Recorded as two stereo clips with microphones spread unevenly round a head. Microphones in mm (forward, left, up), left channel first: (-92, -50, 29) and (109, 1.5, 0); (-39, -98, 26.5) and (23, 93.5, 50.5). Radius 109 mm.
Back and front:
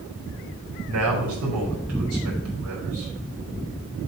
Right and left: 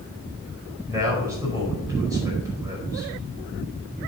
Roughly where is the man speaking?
Ahead.